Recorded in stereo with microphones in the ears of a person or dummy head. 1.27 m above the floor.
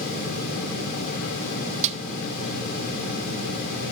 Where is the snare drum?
35° right (ahead or behind), 1.1 m.